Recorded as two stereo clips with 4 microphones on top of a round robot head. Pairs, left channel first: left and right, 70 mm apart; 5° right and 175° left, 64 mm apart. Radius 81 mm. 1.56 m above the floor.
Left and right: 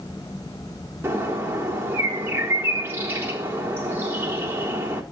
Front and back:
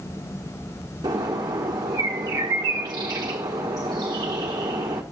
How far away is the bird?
About 1.5 m.